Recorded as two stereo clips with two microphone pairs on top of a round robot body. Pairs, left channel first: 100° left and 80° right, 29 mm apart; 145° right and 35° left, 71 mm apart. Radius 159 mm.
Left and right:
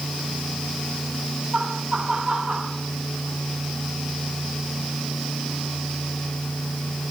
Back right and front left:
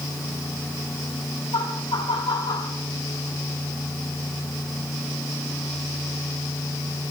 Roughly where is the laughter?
Behind right.